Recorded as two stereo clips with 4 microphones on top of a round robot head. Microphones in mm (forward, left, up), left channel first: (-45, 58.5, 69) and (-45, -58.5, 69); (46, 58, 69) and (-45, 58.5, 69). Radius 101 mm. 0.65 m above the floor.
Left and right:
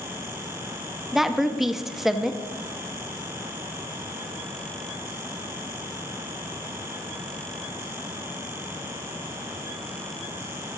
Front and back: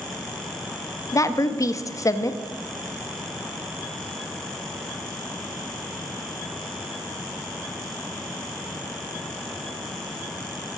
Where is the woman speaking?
5° right, 0.8 m.